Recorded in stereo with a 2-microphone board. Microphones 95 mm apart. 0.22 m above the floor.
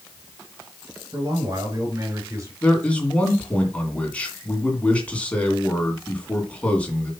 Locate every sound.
1.1 s a man speaking: 40° right (ahead or behind), 3.5 m; by 2.5 s 35° right (ahead or behind), 3.5 m
2.6 s a man speaking: 15° left (ahead or behind), 2.5 m